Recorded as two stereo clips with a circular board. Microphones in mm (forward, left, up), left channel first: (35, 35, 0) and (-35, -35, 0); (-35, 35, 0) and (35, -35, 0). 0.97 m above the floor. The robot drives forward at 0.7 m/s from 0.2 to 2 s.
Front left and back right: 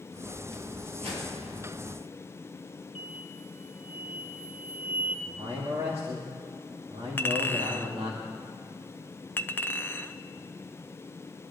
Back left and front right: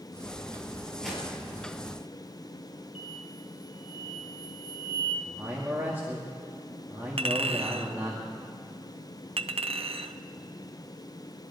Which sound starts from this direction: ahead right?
A clink, at 7.2 s.